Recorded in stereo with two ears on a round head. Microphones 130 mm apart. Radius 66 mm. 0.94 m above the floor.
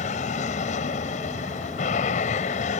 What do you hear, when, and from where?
0.0 s an aircraft: 55° left (ahead or behind)